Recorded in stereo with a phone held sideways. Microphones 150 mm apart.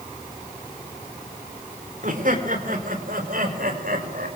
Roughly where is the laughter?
Right.